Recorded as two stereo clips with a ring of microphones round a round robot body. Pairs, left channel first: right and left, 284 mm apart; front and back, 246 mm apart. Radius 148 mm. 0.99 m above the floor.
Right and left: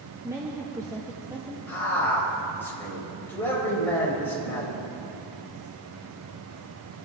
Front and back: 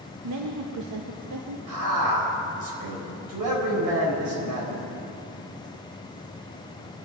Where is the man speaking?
175° right, 4.5 m.